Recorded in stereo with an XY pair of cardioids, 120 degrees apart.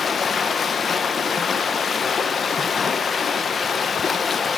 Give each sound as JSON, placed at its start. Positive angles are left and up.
{"t": 0.0, "sound": "running water", "azimuth_deg": 35, "distance_m": 1.3}